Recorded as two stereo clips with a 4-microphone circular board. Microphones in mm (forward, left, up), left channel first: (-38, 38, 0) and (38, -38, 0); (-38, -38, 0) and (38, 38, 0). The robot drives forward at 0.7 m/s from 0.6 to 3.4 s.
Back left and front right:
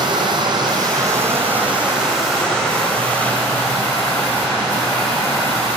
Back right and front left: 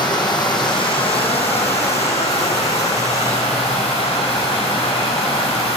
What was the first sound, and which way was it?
Running water, 90° right.